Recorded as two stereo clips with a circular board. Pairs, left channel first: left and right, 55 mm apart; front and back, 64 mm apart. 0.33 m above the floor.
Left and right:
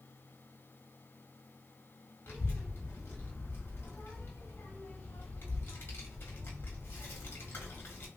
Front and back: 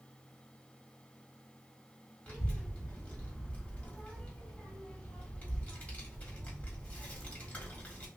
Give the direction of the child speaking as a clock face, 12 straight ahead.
10 o'clock.